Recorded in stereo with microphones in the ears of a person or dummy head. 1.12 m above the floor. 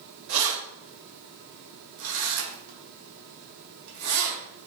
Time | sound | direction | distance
0.3 | keys jangling | 80° right | 2.5 m